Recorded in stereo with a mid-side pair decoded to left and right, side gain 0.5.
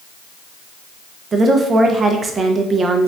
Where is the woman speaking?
40° right, 0.5 m.